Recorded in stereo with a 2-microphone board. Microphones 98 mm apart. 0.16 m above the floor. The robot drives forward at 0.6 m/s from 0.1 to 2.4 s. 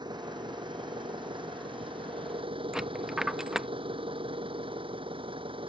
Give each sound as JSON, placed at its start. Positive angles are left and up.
{"t": 0.0, "sound": "an engine running", "side_deg": -45}
{"t": 2.7, "sound": "a dropped coin", "side_deg": -5}